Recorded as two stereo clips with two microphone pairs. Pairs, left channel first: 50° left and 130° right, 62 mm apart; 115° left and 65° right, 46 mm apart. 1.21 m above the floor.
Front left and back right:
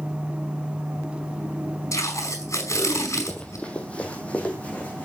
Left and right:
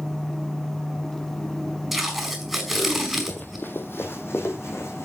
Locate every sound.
1.9 s tape being pulled: 20° left, 4.5 m
3.3 s running footsteps: 115° left, 1.5 m; by 5.1 s 120° left, 3 m